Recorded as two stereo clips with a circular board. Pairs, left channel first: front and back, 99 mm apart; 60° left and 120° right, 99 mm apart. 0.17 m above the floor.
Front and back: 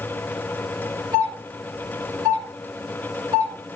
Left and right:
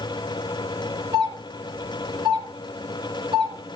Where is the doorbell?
145° right, 3.5 m.